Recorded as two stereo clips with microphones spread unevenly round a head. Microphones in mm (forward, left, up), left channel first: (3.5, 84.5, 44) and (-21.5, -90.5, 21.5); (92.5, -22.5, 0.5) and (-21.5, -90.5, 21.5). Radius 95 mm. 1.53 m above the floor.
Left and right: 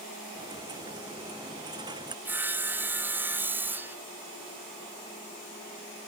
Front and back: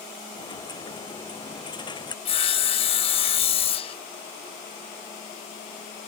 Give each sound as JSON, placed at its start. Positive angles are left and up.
{"t": 0.3, "sound": "a dropped coin", "azimuth_deg": -25}
{"t": 2.2, "sound": "sawing", "azimuth_deg": -15}